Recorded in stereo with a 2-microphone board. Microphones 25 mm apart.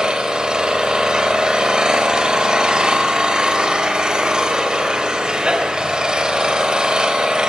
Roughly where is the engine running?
Right.